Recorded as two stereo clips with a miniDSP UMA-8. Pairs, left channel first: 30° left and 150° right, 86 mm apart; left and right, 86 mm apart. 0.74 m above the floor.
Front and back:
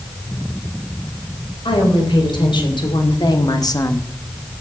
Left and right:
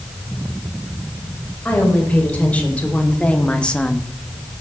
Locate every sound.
1.6 s a woman speaking: 20° left, 4 m; by 4.1 s 10° left, 0.9 m